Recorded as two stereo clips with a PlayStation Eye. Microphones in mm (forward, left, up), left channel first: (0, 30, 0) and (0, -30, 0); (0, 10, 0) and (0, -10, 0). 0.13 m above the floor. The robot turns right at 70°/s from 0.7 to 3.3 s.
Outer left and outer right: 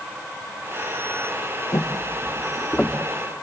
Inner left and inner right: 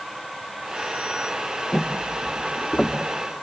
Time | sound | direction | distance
1.7 | footsteps | 60° left (ahead or behind) | 1.3 m